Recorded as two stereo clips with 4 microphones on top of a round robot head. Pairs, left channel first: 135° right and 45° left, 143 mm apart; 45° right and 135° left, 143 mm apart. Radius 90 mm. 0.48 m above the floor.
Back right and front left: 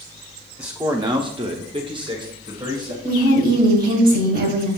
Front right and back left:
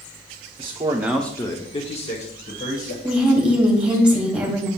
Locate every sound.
0.6 s a man speaking: 115° left, 1.0 m; by 2.9 s 15° right, 2.5 m
3.0 s a woman speaking: 55° left, 2.5 m